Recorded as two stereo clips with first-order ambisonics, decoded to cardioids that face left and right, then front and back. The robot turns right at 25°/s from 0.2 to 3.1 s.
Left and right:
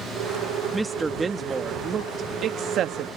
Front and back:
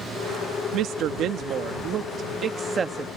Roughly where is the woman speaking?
Behind.